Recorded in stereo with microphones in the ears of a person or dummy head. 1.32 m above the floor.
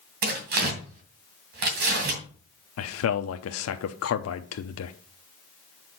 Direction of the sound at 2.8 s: 75° left (ahead or behind).